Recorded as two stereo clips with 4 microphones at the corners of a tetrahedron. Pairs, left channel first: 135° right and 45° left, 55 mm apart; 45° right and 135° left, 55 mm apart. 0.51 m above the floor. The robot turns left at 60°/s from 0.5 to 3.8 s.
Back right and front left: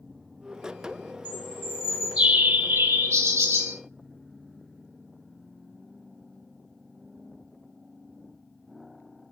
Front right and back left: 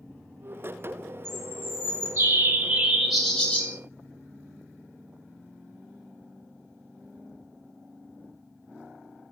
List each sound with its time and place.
1.2 s a bird: 160° left, 1.2 m; by 3.8 s 10° left, 1.2 m